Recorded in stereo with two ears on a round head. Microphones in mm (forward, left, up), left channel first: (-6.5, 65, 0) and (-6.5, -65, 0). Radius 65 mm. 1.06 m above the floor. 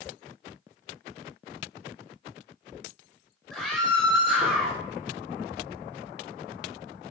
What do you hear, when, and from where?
3.5 s a scream: 5° left (ahead or behind), 5.5 m